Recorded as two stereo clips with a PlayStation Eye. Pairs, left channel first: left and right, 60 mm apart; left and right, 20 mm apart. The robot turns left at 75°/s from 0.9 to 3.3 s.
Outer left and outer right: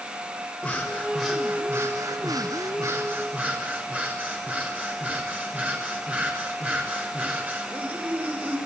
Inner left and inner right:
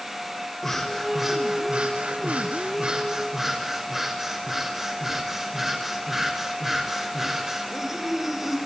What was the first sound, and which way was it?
Breathing, 30° left.